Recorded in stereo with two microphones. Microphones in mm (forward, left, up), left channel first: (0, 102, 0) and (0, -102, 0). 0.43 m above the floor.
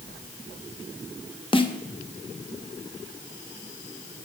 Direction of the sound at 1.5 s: 25° left (ahead or behind).